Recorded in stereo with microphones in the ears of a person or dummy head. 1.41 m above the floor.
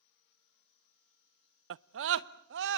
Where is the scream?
70° right (ahead or behind), 0.7 m; by 2.8 s 65° right (ahead or behind), 2 m.